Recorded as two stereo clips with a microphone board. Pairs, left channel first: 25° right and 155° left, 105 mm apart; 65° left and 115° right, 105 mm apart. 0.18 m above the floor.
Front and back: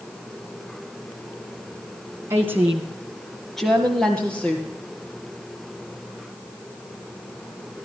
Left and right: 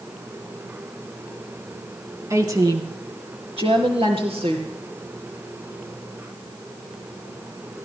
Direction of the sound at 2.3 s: 150° right.